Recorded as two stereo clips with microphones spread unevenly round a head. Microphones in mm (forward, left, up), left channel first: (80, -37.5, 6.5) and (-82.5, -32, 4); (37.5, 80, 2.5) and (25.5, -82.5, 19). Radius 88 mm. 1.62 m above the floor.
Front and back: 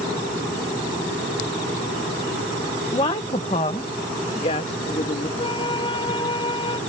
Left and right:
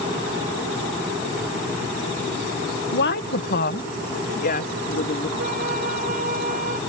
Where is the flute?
60° right.